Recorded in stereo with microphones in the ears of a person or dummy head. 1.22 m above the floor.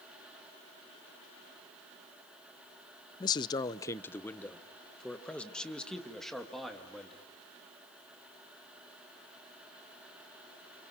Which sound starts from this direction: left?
A man speaking, at 3.2 s.